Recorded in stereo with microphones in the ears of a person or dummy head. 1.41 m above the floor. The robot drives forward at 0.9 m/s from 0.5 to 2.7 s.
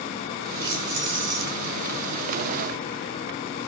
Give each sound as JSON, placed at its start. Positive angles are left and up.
{"t": 0.6, "sound": "keys jangling", "side_deg": -20, "distance_m": 4.5}